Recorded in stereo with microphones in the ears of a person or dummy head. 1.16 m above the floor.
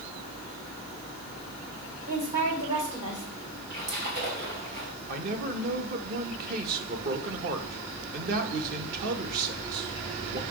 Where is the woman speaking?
30° right (ahead or behind), 4 m.